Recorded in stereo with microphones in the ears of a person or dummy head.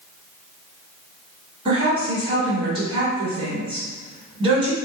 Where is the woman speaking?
25° right (ahead or behind), 1.2 m.